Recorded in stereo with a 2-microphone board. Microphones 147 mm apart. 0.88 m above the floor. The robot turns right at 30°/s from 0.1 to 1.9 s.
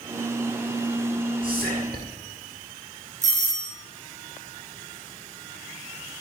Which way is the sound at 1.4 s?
75° right (ahead or behind).